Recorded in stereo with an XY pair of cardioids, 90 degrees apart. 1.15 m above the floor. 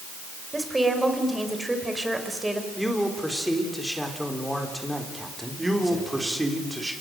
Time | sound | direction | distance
0.5 | a woman speaking | 15° right | 4.5 m
2.8 | a man speaking | 5° left | 4 m
5.6 | a man speaking | 15° right | 4 m